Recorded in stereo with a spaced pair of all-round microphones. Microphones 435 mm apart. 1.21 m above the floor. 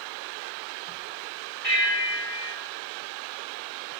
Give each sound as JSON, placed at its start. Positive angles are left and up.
{"t": 1.6, "sound": "a bell", "side_deg": 75, "distance_m": 4.5}